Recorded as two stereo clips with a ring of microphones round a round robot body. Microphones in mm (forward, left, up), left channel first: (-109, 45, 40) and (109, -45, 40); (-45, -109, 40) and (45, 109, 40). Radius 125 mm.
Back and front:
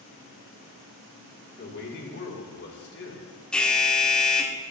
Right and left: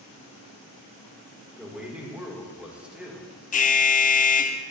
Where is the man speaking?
150° left, 1.5 m.